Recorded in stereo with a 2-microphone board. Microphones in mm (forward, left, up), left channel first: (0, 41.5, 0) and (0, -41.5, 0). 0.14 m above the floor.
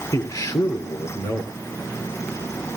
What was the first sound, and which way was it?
A man speaking, 50° left (ahead or behind).